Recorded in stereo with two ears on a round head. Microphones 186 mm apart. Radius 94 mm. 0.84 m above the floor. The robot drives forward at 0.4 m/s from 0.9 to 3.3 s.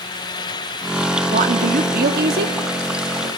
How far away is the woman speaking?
About 1.4 m.